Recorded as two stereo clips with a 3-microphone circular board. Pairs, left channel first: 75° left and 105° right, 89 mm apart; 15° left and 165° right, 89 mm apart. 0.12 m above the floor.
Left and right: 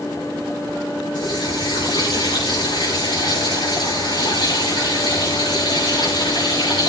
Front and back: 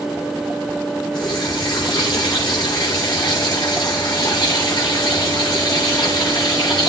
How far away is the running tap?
About 8 m.